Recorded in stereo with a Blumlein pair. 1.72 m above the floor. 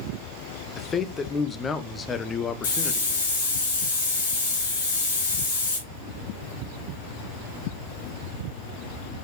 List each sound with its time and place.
0.8 s a man speaking: 20° left, 1.0 m
2.6 s a hiss: 60° left, 5.5 m